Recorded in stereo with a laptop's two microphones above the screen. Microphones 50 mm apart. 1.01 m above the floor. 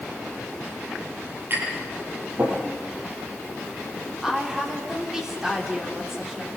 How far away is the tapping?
About 10 m.